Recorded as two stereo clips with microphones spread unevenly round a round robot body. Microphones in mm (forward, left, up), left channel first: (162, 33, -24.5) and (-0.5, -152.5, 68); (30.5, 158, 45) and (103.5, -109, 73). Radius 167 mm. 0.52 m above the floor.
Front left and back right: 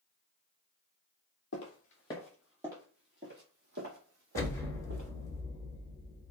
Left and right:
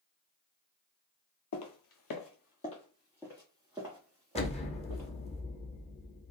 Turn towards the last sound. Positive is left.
turn(degrees=70)